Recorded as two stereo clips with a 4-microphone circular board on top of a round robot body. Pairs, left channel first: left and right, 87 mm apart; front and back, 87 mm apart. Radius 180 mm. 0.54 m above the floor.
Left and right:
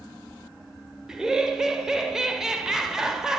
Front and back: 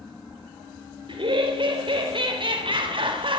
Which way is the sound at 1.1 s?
175° right.